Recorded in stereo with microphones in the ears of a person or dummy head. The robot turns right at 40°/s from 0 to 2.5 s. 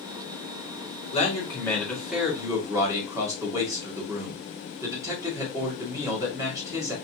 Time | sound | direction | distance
1.1 | a man speaking | 145° left | 2 m